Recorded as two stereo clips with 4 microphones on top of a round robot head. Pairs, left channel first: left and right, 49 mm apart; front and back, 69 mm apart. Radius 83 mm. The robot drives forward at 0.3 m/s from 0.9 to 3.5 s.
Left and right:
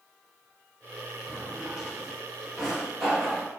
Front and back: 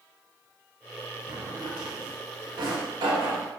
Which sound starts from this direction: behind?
A drawer, at 1.3 s.